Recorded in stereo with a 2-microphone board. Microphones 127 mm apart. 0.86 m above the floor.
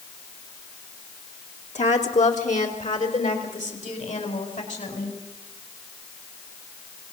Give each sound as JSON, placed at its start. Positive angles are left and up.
{"t": 1.8, "sound": "a woman speaking", "side_deg": 70, "distance_m": 2.0}